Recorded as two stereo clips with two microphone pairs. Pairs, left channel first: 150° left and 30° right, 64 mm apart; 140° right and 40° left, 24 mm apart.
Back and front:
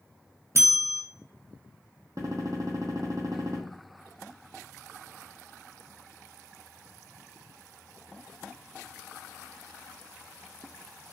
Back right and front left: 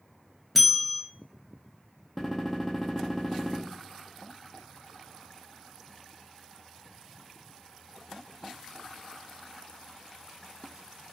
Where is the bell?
50° right, 0.6 m.